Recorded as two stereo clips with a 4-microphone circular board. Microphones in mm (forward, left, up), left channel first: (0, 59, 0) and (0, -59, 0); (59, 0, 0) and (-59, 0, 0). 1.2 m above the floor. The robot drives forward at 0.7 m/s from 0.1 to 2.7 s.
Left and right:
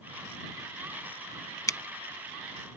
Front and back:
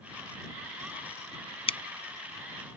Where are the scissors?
30° left; by 1.8 s 35° left.